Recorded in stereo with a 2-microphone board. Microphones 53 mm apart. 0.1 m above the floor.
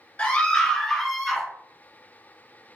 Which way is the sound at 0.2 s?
25° left (ahead or behind).